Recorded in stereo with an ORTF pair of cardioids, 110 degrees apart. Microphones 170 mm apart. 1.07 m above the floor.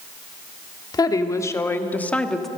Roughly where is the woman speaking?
Ahead left.